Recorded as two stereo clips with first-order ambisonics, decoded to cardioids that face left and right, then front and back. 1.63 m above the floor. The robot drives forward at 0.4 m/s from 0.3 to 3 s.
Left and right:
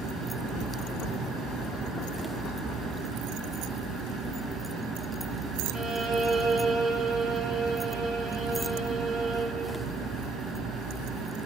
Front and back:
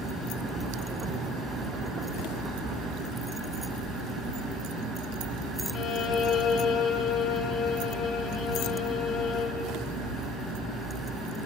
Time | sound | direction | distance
5.7 | a violin | 50° right | 2 m